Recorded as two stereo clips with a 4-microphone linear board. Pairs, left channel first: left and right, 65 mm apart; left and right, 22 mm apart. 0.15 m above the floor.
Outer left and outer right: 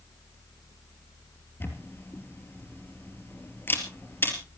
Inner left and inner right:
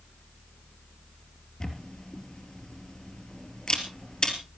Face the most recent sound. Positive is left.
turn(degrees=35)  # may be behind; listen again after turning